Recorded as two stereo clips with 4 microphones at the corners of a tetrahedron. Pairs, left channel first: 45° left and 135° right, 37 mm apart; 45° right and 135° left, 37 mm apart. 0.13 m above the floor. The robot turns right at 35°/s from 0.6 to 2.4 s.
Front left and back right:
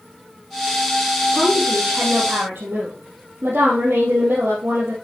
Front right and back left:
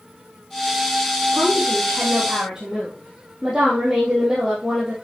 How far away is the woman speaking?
About 4 m.